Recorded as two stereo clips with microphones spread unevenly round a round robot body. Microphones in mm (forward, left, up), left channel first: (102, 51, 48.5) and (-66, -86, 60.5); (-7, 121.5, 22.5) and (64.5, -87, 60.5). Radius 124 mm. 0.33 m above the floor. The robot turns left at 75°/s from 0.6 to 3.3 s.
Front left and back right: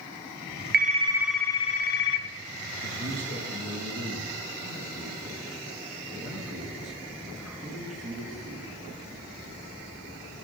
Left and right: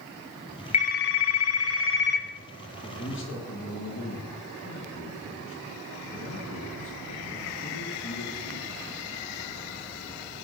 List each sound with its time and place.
0.7 s a phone ringing: 170° left, 1.7 m; by 2.3 s 55° left, 1.7 m
2.8 s a man speaking: 165° left, 4 m; by 8.7 s 130° left, 4 m